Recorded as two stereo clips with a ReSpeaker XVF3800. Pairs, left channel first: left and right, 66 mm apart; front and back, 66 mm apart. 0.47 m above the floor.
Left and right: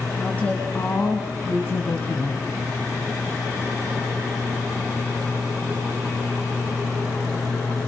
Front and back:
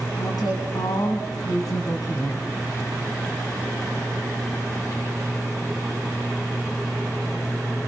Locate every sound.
0.2 s a woman speaking: 20° left, 4 m; by 2.5 s 40° left, 4 m